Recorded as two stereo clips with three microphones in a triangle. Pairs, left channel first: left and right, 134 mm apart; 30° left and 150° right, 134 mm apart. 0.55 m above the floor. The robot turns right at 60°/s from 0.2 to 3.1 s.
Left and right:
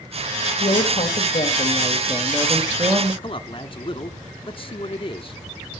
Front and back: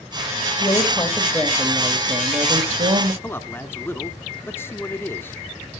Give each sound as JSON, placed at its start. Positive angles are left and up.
{"t": 0.6, "sound": "a woman speaking", "azimuth_deg": 70, "distance_m": 2.0}
{"t": 3.2, "sound": "a man speaking", "azimuth_deg": 95, "distance_m": 1.0}